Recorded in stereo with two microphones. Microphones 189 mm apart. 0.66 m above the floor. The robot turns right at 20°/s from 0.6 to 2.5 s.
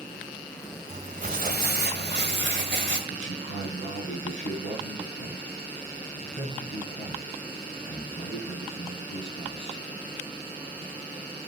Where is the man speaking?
85° left, 8.5 m.